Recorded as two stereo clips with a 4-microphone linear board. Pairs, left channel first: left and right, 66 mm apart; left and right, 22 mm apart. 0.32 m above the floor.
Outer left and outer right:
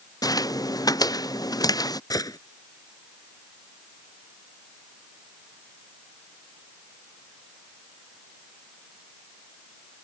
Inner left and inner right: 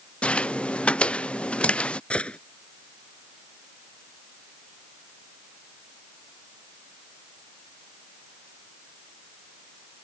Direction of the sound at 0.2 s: 70° left (ahead or behind).